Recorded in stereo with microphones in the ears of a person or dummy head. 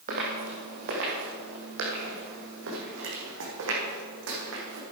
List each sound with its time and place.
0.1 s footsteps: 40° right (ahead or behind), 3 m; by 4.8 s 70° right (ahead or behind), 4.5 m